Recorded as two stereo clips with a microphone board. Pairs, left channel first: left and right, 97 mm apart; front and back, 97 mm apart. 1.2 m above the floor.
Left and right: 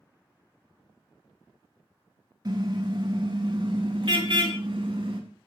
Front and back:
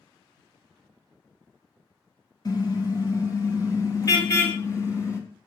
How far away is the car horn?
About 4.5 m.